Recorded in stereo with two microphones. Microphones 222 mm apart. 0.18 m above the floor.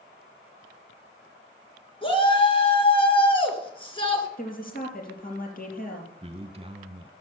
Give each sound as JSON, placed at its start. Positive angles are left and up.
{"t": 2.0, "sound": "a shout", "side_deg": 25, "distance_m": 3.0}
{"t": 4.4, "sound": "a woman speaking", "side_deg": 40, "distance_m": 3.5}
{"t": 6.2, "sound": "a man speaking", "side_deg": -25, "distance_m": 1.6}